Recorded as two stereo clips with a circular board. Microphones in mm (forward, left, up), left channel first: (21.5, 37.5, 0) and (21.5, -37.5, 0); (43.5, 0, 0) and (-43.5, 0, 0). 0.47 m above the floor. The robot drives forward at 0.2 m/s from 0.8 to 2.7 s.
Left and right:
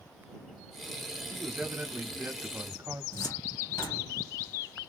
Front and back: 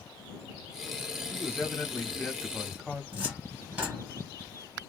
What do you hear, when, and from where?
1.3 s a man speaking: 35° right, 0.9 m; by 3.0 s 65° right, 0.8 m
3.1 s a cupboard door: 105° left, 1.1 m